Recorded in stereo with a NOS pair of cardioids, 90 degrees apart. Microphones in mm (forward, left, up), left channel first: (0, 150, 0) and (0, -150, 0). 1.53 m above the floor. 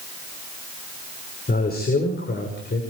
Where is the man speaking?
30° left, 5.5 m; by 2.8 s 35° left, 6 m.